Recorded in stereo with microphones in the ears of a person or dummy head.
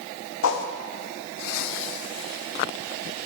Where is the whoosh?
75° left (ahead or behind), 1.0 m.